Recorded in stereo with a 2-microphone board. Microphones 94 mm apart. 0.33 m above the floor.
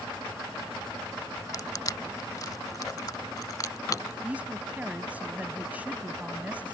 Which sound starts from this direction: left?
Crushing, at 1.5 s.